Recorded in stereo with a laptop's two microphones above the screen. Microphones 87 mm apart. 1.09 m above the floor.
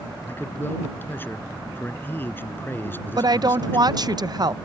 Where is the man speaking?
25° left (ahead or behind).